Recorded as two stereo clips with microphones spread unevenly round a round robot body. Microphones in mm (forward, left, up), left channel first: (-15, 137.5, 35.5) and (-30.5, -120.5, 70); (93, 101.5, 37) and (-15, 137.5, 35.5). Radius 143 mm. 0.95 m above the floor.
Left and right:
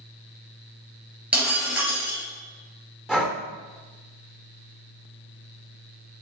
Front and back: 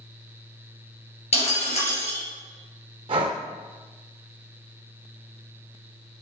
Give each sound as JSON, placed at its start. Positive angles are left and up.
{"t": 1.3, "sound": "breaking glass", "azimuth_deg": -10, "distance_m": 3.0}
{"t": 3.1, "sound": "breathing", "azimuth_deg": -170, "distance_m": 0.7}